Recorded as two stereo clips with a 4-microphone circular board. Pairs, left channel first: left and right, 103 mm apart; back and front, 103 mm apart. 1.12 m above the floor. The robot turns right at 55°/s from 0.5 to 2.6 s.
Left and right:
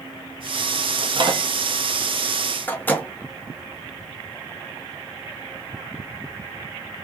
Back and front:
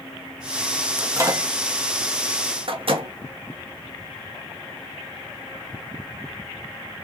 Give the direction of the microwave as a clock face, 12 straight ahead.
2 o'clock.